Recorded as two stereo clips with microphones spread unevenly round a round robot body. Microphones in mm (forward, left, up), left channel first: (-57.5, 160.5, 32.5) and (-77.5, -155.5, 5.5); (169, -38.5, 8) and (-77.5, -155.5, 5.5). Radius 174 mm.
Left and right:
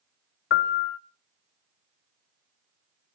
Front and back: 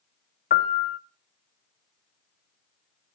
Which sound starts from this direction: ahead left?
A piano, at 0.5 s.